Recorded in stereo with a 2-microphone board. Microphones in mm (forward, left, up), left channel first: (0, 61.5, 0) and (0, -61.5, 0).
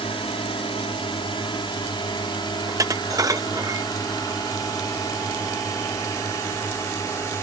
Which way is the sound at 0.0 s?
45° left (ahead or behind).